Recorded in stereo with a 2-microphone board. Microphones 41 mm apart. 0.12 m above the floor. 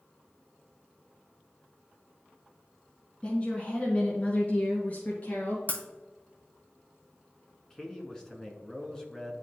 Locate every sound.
3.2 s a woman speaking: 25° left (ahead or behind), 1.4 m; by 5.6 s 40° left (ahead or behind), 2.5 m
5.7 s breaking glass: 35° left (ahead or behind), 1.0 m
7.7 s a man speaking: 15° left (ahead or behind), 1.1 m